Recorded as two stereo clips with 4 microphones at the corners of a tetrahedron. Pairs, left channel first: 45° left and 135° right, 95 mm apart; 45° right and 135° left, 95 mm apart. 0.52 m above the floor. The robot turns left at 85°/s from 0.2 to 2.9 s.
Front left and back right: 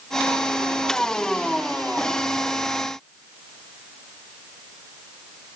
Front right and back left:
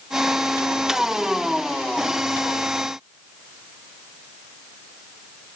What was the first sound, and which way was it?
Only background noise.